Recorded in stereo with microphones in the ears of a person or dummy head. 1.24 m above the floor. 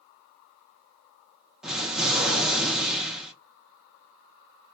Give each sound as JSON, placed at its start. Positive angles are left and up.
{"t": 1.6, "sound": "an explosion", "side_deg": -5, "distance_m": 0.7}